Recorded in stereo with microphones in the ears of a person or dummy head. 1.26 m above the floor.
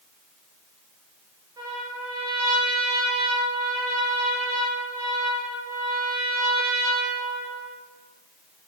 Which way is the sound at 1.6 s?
15° right (ahead or behind).